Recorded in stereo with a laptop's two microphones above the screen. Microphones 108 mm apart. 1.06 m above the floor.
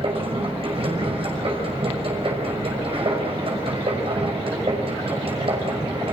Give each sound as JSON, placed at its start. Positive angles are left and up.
{"t": 0.0, "sound": "a machine running", "side_deg": -60, "distance_m": 6.0}